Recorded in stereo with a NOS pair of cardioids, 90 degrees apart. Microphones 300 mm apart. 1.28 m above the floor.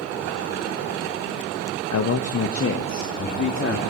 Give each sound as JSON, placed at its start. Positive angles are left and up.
{"t": 1.9, "sound": "a man speaking", "azimuth_deg": 55, "distance_m": 1.3}